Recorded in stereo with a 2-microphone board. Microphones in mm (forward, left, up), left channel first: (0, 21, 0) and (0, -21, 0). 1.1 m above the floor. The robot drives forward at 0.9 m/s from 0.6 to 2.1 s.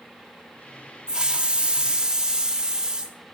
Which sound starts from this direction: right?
A hiss, at 1.1 s.